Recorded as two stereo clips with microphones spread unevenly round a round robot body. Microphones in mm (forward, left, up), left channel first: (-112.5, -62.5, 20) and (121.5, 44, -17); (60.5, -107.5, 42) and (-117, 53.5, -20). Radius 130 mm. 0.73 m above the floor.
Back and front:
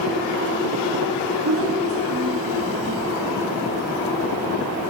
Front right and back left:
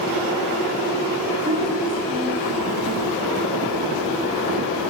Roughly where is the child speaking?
Left.